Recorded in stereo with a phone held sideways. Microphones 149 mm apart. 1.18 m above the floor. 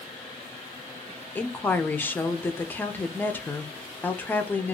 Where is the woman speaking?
15° left (ahead or behind), 0.6 m.